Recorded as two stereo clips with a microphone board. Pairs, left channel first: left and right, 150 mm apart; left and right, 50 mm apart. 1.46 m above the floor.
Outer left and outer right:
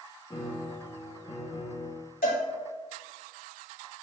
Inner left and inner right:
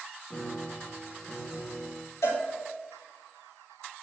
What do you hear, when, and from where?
0.3 s a piano: 30° left (ahead or behind), 0.8 m
2.2 s a cowbell: 90° left, 2 m